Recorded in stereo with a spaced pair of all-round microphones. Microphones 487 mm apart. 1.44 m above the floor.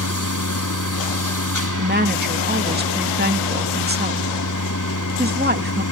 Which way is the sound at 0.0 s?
35° left (ahead or behind).